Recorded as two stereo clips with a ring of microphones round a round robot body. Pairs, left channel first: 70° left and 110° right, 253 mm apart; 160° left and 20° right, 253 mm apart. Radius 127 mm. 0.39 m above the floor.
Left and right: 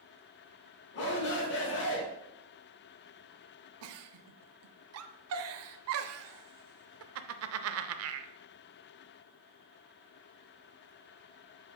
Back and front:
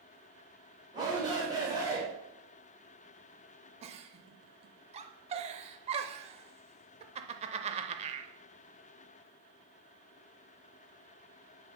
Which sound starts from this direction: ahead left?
A shout, at 0.9 s.